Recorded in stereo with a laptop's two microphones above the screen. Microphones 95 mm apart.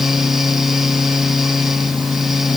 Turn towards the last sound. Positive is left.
turn(degrees=-5)  # may be behind; listen again after turning